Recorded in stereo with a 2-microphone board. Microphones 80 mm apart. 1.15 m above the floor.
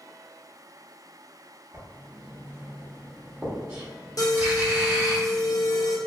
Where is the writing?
25° right (ahead or behind), 1.1 m.